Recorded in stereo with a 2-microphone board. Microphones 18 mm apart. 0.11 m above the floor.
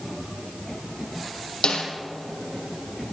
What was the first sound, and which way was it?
A snare drum, 70° left (ahead or behind).